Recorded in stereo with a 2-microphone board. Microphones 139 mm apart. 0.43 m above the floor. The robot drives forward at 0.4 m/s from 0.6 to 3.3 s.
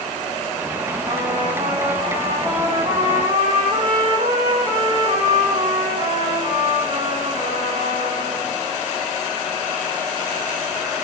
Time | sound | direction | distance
1.1 | a trumpet | 40° right (ahead or behind) | 8 m